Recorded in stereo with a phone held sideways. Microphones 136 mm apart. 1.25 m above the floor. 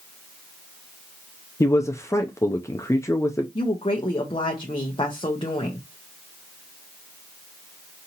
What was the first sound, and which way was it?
A man speaking, 20° left (ahead or behind).